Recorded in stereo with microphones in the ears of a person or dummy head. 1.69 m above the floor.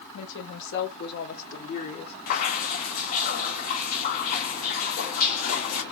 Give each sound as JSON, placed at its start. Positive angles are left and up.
{"t": 0.1, "sound": "a woman speaking", "side_deg": 80, "distance_m": 2.0}
{"t": 2.3, "sound": "dripping", "side_deg": 40, "distance_m": 1.1}